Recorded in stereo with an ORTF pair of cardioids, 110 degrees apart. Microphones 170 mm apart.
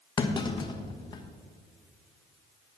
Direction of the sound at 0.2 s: 25° left.